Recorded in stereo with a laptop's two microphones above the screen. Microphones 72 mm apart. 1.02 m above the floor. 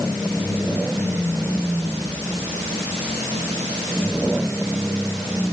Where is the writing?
No writing in this recording.